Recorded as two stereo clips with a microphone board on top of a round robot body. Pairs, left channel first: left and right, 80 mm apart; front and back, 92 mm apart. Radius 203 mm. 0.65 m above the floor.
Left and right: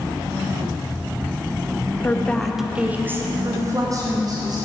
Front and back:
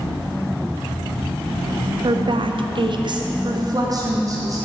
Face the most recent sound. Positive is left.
turn(degrees=-125)